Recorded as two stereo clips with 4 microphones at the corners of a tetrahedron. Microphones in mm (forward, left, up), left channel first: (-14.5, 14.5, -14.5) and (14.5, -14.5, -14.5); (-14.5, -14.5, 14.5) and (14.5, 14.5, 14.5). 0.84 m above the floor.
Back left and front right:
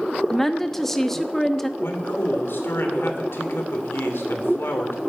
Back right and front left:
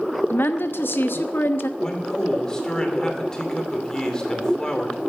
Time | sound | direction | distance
0.3 | a woman speaking | 145° right | 0.9 m
1.8 | a man speaking | 155° left | 2.5 m